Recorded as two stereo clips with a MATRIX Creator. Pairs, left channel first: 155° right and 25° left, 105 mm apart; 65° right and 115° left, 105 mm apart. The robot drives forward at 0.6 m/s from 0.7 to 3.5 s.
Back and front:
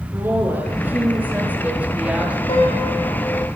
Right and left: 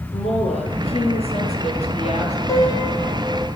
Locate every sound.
0.1 s a woman speaking: 50° right, 8.5 m; by 2.4 s 55° right, 8 m
2.5 s a piano: 125° right, 6 m; by 3.5 s 130° right, 6.5 m